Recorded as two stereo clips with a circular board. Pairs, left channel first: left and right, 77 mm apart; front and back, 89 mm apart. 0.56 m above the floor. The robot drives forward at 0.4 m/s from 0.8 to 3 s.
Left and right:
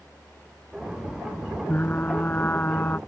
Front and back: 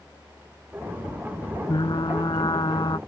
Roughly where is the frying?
Ahead left.